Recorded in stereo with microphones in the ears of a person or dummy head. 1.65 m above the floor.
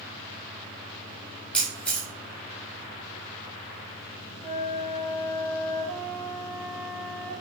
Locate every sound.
1.5 s a camera shutter: 10° left (ahead or behind), 1.3 m
4.4 s a flute: 10° left (ahead or behind), 3 m